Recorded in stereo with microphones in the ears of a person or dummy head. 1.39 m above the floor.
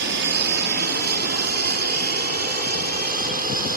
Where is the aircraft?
55° right (ahead or behind); by 3.8 s 45° right (ahead or behind).